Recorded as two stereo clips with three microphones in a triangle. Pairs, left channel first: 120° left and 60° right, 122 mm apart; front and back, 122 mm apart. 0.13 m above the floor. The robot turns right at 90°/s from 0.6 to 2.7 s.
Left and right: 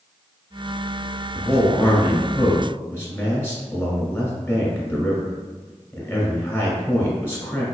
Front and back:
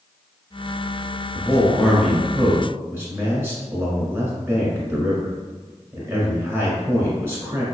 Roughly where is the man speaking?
Ahead left.